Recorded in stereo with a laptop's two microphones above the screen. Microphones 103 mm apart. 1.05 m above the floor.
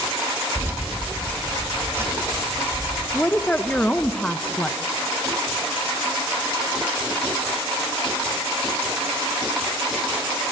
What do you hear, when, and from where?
0.6 s keys jangling: 20° right (ahead or behind), 1.1 m
3.1 s a woman speaking: 10° left (ahead or behind), 0.8 m